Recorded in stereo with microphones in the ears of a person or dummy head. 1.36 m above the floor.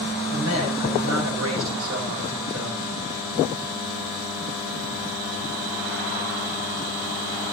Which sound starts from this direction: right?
A man speaking, at 0.3 s.